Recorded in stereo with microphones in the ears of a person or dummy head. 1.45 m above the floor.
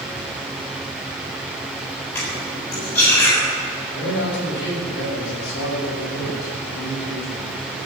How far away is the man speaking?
About 7 m.